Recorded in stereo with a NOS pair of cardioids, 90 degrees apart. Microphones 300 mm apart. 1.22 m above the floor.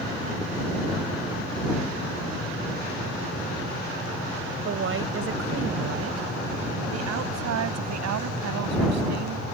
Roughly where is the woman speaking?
Ahead right.